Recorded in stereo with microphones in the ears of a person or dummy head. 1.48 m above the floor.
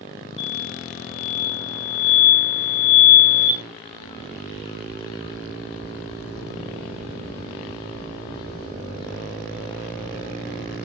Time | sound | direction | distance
0.4 | an explosion | 35° left (ahead or behind) | 1.9 m